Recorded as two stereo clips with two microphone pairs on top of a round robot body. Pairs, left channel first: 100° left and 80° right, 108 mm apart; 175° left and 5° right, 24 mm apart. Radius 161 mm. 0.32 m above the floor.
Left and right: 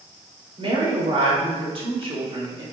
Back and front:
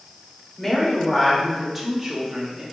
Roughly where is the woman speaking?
Right.